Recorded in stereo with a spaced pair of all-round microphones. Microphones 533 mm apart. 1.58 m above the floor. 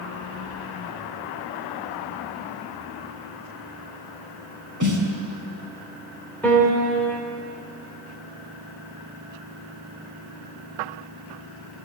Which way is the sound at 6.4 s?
5° left (ahead or behind).